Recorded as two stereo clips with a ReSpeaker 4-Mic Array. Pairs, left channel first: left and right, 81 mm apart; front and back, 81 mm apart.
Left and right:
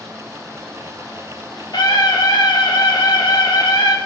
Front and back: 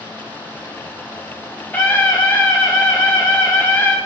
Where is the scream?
70° left, 0.8 m.